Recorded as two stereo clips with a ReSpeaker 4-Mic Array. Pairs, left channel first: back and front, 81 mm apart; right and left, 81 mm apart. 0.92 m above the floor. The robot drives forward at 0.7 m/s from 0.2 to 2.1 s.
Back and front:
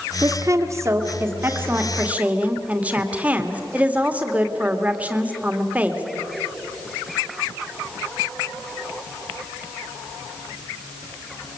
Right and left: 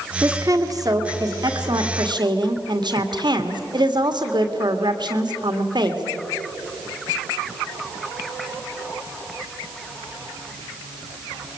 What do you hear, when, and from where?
0.2 s a woman speaking: 45° left, 3 m; by 6.0 s 70° left, 2 m